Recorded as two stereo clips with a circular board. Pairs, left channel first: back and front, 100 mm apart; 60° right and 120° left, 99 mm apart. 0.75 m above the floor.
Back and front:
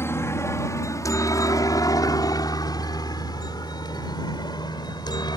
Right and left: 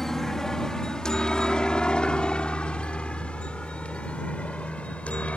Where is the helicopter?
145° right; by 5.4 s 140° right.